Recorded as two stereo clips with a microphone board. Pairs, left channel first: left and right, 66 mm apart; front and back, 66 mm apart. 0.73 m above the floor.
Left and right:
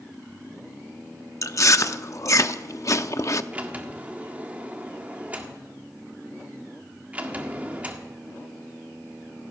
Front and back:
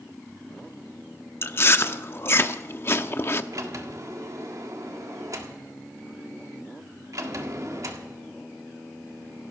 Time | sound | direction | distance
1.4 | chewing | 50° left | 0.6 m
3.5 | a sliding door | 155° right | 1.5 m